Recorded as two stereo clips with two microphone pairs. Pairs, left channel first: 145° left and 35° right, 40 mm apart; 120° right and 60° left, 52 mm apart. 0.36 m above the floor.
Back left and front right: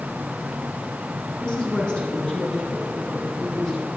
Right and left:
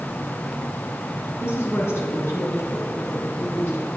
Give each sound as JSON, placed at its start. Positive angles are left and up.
{"t": 1.4, "sound": "a woman speaking", "azimuth_deg": -150, "distance_m": 4.0}